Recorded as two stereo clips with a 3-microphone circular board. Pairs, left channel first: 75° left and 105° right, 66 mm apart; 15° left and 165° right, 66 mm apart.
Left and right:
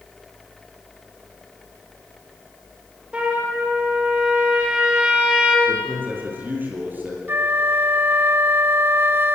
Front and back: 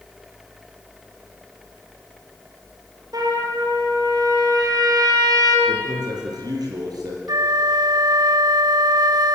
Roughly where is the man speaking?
Behind.